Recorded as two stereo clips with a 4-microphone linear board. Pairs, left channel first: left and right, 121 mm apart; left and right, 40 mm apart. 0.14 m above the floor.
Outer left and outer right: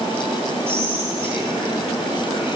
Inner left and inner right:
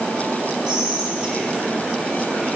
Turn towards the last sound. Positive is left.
turn(degrees=-20)  # may be behind; listen again after turning